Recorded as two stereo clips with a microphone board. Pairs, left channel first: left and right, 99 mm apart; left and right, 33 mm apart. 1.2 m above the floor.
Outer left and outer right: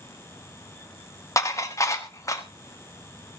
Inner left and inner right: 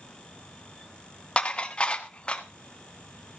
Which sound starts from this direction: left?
Dishes clattering, at 1.4 s.